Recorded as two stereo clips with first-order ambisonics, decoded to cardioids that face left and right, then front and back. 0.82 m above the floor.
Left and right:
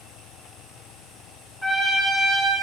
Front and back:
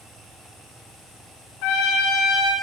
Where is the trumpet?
Straight ahead, 1.4 m.